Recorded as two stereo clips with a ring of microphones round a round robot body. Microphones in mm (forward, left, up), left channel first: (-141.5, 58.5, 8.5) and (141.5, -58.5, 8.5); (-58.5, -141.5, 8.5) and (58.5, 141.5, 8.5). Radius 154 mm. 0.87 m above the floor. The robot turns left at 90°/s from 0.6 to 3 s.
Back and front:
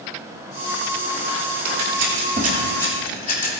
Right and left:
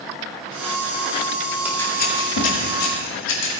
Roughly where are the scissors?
Ahead.